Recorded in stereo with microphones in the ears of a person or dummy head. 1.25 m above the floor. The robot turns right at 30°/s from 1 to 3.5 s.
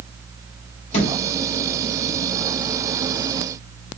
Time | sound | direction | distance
0.9 | a thud | 35° left (ahead or behind) | 1.3 m